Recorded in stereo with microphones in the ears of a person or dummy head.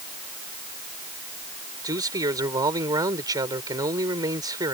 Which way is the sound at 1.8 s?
25° right (ahead or behind).